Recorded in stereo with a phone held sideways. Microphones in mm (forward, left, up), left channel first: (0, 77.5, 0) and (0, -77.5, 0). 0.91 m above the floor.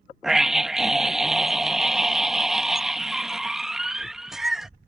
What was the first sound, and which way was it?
A scream, 5° right (ahead or behind).